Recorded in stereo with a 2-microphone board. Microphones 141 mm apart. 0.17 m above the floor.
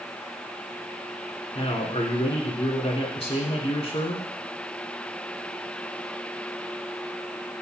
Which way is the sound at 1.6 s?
40° left (ahead or behind).